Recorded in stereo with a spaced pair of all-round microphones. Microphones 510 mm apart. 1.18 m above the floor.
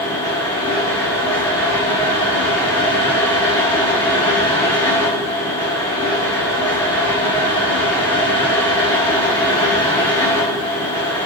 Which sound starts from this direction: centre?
A fan, at 0.0 s.